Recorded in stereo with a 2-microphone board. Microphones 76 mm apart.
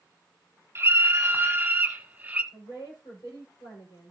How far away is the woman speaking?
About 5.5 m.